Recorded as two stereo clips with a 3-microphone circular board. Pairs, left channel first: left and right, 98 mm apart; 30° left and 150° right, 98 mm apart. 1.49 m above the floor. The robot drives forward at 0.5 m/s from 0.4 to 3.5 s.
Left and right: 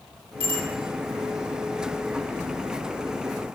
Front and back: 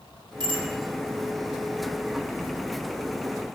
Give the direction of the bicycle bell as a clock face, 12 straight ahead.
4 o'clock.